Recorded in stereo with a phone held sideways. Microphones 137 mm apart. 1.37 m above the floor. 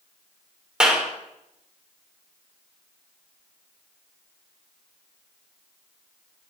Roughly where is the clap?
Centre.